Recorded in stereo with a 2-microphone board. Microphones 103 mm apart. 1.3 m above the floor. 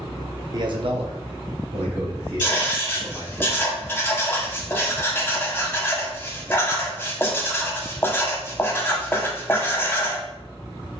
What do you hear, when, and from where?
0.5 s a man speaking: 40° right (ahead or behind), 0.6 m; by 3.4 s 65° right (ahead or behind), 2 m
2.4 s writing: 20° left (ahead or behind), 0.7 m